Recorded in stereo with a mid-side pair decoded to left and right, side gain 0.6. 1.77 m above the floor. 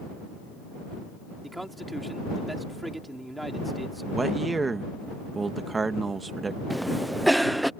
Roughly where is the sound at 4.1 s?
Ahead.